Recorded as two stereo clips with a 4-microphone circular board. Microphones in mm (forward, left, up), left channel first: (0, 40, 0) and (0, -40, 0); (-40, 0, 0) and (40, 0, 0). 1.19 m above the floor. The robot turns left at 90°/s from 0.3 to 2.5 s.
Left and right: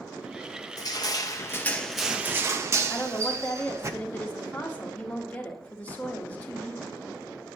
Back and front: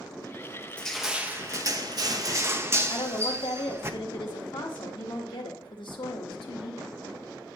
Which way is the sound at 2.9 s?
160° left.